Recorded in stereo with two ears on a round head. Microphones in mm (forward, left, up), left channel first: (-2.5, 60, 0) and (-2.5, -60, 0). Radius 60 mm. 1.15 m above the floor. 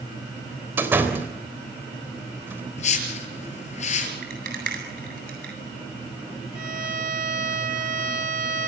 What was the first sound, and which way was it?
A door slam, 15° right (ahead or behind).